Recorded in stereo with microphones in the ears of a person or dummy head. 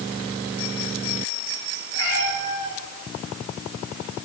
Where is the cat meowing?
85° left, 7.5 m.